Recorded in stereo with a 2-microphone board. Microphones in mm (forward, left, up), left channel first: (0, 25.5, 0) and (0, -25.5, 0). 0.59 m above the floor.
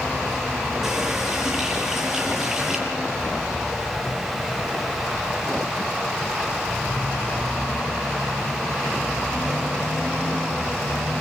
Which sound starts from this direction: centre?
A running tap, at 0.8 s.